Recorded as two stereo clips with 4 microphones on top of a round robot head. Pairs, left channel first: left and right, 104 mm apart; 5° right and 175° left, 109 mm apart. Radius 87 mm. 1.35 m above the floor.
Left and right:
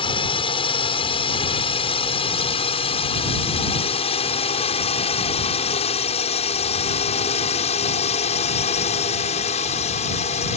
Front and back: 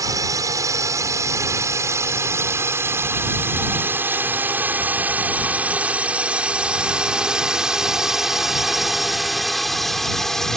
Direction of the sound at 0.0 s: 120° left.